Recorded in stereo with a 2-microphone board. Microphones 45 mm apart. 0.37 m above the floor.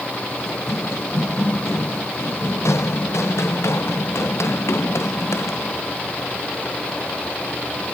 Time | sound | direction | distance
0.5 | running footsteps | 80° left | ?